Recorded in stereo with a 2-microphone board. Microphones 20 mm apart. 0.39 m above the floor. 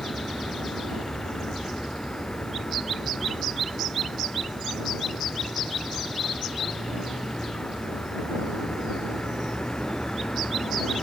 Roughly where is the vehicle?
Left.